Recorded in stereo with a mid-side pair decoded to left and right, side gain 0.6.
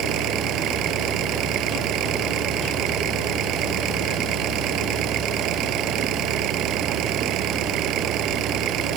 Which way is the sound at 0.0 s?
60° right.